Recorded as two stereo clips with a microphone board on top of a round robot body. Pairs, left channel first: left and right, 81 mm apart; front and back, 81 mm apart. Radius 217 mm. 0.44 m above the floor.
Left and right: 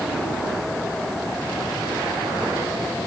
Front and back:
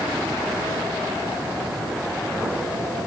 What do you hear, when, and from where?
Only background noise.